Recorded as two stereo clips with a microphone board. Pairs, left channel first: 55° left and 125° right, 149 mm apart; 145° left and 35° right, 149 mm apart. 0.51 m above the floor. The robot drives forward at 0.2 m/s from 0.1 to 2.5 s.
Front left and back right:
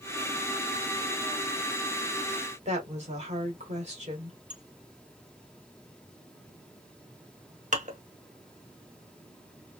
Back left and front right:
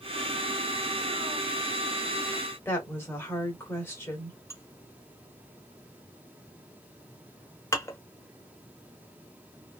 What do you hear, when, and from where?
2.6 s a woman speaking: 145° right, 1.6 m
4.5 s dishes clattering: 145° right, 0.8 m